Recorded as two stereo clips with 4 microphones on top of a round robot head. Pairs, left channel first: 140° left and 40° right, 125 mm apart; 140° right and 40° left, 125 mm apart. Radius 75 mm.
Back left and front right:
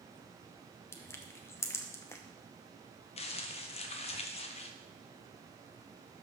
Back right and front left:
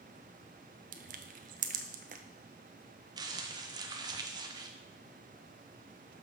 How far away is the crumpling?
About 0.8 m.